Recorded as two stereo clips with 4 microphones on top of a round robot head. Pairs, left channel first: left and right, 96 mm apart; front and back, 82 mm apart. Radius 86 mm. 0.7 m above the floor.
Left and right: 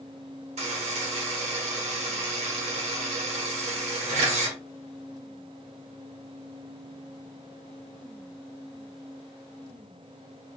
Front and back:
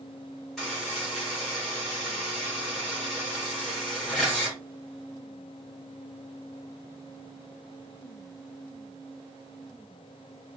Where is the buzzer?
85° right, 1.1 m.